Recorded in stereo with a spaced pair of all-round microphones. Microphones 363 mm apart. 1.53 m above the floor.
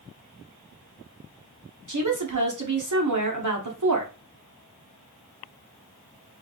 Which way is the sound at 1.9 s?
55° right (ahead or behind).